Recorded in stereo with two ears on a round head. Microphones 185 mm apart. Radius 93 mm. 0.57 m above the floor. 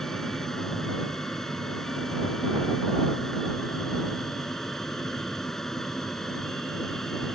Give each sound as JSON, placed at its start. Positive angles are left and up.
{"t": 0.0, "sound": "an aircraft", "side_deg": 0}